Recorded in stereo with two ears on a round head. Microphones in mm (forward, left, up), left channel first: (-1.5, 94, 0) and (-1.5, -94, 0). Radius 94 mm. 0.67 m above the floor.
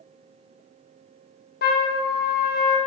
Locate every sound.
1.6 s a trumpet: 45° left (ahead or behind), 1.0 m